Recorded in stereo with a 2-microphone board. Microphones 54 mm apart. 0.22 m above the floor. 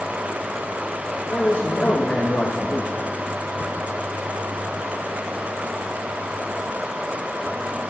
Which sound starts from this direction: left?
A man speaking, at 1.3 s.